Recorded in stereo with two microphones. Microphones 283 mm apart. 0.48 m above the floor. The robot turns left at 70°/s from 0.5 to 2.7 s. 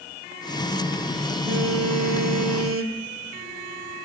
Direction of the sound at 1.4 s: 40° right.